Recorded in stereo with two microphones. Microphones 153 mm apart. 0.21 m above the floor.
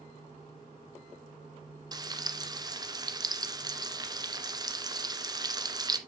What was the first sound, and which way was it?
Frying, 25° right (ahead or behind).